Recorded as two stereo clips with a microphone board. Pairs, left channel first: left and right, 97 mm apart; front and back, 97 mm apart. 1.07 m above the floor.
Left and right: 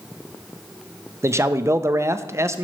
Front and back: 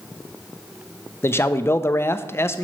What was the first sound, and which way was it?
A man speaking, 45° right.